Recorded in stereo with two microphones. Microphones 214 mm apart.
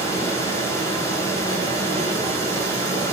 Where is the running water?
15° left (ahead or behind), 5 m.